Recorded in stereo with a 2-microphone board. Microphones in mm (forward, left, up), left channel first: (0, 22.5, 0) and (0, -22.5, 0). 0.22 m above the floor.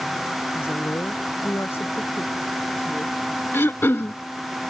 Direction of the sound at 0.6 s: 60° left (ahead or behind).